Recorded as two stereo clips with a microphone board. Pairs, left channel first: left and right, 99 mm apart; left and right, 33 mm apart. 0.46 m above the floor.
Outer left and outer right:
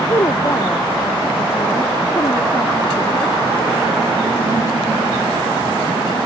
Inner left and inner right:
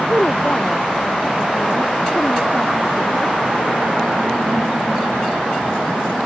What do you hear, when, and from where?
0.1 s a woman speaking: 35° left (ahead or behind)